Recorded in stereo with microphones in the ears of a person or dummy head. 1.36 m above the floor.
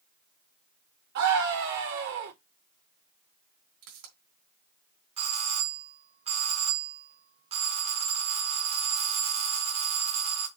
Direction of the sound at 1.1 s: 65° right (ahead or behind).